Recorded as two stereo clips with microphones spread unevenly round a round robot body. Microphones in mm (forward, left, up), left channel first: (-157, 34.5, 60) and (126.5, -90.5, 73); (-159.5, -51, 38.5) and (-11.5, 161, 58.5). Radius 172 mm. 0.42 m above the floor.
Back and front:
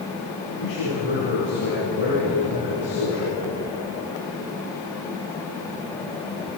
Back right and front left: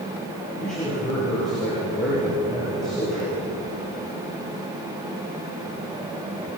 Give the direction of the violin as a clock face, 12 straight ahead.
I don't hear a violin.